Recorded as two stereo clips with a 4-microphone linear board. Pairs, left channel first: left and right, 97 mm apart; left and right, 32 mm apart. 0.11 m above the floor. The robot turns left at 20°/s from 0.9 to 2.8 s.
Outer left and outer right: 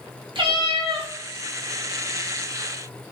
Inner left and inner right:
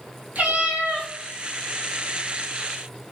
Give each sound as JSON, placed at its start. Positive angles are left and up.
{"t": 0.3, "sound": "a cat meowing", "side_deg": -55, "distance_m": 1.3}